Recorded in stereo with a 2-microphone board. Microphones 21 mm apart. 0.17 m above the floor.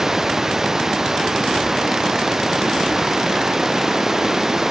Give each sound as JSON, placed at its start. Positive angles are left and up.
{"t": 0.0, "sound": "running water", "side_deg": -25}